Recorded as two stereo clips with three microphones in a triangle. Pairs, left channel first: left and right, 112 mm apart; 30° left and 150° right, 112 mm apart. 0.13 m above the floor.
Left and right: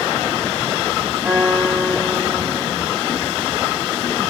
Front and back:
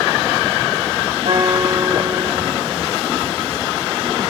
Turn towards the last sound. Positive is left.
turn(degrees=-160)